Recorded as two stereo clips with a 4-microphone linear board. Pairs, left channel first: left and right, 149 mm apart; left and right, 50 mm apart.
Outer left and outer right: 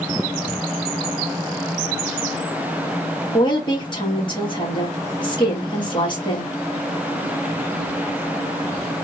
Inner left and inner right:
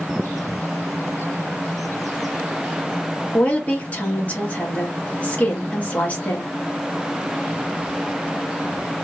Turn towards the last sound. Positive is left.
turn(degrees=30)  # may be behind; listen again after turning